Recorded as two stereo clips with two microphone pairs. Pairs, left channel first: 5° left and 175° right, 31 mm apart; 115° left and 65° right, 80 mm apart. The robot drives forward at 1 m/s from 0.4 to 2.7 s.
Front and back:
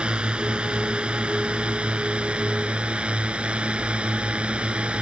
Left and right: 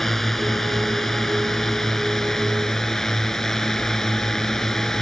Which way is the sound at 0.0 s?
160° right.